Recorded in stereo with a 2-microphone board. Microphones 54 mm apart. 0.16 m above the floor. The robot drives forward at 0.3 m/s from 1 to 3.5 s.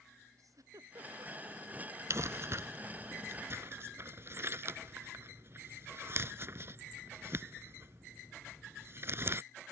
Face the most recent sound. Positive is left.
turn(degrees=-45)  # may be behind; listen again after turning